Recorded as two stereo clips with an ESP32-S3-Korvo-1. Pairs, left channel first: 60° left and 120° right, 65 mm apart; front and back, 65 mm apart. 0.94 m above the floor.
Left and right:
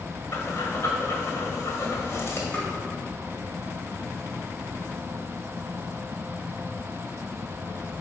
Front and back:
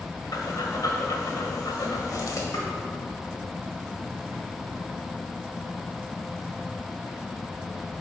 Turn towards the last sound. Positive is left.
turn(degrees=-10)